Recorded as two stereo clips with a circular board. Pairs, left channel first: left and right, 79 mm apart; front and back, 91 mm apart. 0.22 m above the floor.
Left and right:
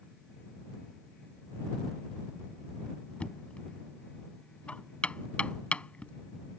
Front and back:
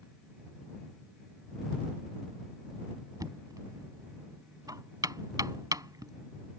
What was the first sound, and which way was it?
Knocking, 160° left.